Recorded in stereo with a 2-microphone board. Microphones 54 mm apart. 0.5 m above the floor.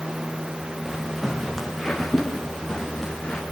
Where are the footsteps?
5° right (ahead or behind), 4.5 m; by 3.4 s 10° left (ahead or behind), 6 m.